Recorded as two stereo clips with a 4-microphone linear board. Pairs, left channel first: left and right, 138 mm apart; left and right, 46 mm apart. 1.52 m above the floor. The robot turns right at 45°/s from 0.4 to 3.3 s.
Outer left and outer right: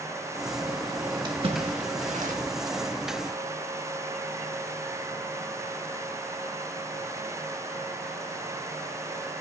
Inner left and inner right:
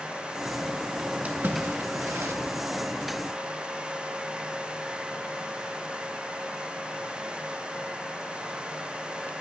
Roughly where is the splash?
Right.